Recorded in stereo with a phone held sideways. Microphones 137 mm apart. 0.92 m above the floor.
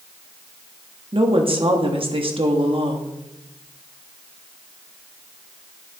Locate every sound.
1.1 s a woman speaking: 45° right (ahead or behind), 1.4 m